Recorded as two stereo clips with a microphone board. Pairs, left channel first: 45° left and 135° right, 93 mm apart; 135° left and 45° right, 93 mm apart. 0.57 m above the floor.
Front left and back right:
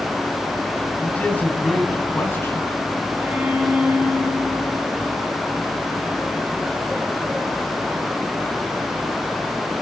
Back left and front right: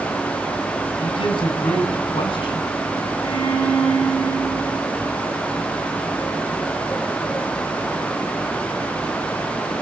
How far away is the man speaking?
About 4.5 m.